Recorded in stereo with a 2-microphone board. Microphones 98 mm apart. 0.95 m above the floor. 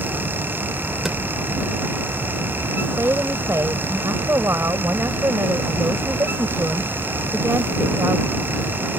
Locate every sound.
1.1 s a drawer: 5° right (ahead or behind)
2.8 s a woman speaking: 30° right (ahead or behind)